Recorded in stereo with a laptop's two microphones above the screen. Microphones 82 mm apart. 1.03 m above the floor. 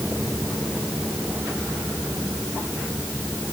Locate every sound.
Only background noise.